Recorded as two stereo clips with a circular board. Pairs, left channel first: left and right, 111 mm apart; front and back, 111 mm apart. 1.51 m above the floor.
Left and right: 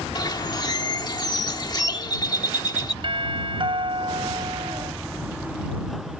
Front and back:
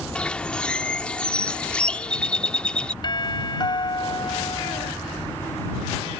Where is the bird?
75° left.